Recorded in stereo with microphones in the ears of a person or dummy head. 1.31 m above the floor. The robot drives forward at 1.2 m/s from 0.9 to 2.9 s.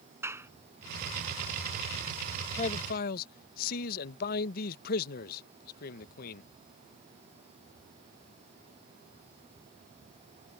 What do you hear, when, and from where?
0.2 s a clap: 10° right (ahead or behind)
2.6 s a man speaking: 35° left (ahead or behind); by 6.4 s 50° left (ahead or behind)